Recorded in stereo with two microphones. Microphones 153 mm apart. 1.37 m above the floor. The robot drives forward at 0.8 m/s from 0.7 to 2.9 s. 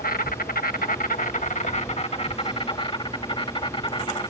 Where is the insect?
70° left (ahead or behind); by 4.3 s 35° left (ahead or behind).